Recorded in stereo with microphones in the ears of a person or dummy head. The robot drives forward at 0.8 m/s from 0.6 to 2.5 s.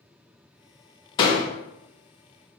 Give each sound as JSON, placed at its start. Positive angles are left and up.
{"t": 1.2, "sound": "a door slam", "side_deg": 25, "distance_m": 0.6}